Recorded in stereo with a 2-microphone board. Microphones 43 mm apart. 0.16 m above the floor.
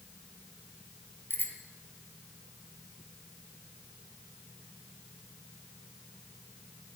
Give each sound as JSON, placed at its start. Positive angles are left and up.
{"t": 1.3, "sound": "a bicycle bell", "side_deg": 55, "distance_m": 3.0}